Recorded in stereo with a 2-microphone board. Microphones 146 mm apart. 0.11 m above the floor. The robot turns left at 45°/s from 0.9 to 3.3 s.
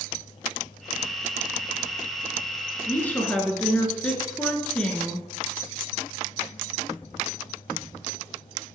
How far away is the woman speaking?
About 1.1 m.